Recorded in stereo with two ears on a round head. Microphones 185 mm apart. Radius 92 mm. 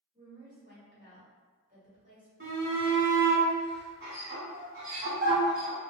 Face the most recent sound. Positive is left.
turn(degrees=-45)  # may be behind; listen again after turning